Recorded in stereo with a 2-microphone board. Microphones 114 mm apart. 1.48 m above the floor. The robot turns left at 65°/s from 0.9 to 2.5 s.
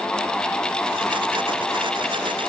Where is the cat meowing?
No cat meowing in this recording.